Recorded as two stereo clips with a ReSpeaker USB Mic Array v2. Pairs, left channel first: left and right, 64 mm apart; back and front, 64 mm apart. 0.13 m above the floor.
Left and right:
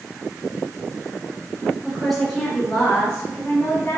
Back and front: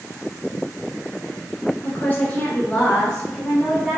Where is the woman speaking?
175° right, 1.4 m; by 4.0 s 90° left, 1.5 m.